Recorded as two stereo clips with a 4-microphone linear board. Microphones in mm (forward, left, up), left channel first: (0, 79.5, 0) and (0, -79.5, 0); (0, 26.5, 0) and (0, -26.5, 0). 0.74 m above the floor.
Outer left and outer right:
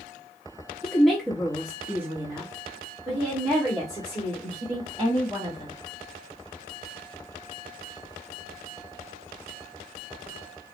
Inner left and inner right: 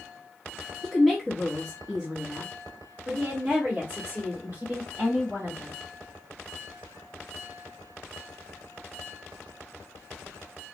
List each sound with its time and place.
0.8 s a woman speaking: 5° left (ahead or behind), 1.1 m; by 5.7 s 30° right (ahead or behind), 3 m